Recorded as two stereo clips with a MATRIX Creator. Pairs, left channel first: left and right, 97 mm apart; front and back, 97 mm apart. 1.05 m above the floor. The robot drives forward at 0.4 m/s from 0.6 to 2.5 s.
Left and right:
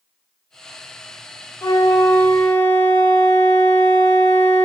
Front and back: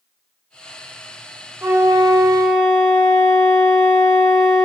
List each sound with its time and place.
1.6 s a flute: 125° left, 0.5 m; by 4.7 s 150° left, 0.7 m